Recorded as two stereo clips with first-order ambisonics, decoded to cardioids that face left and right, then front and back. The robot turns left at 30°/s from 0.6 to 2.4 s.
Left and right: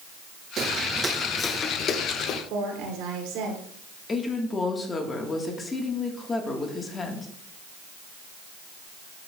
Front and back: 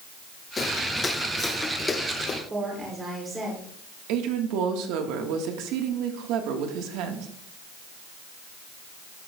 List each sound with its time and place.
0.6 s footsteps: 60° right, 0.9 m; by 2.4 s 55° left, 1.3 m
2.5 s a woman speaking: 105° right, 3 m
4.1 s a woman speaking: 160° left, 1.4 m